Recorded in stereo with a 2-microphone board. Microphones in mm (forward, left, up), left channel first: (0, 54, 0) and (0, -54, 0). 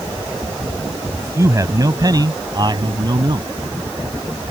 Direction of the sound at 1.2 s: 25° right (ahead or behind).